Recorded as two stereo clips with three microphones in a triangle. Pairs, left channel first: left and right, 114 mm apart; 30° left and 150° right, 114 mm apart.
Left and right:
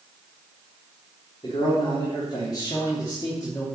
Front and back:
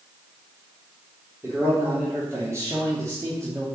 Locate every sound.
1.4 s a man speaking: 140° left, 3.5 m; by 3.7 s 155° left, 2.5 m